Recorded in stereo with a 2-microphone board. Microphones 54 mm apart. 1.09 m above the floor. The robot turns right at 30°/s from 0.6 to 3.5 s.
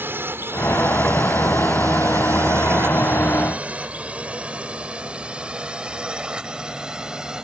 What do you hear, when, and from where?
0.0 s a drone: 40° right (ahead or behind); by 7.5 s 15° right (ahead or behind)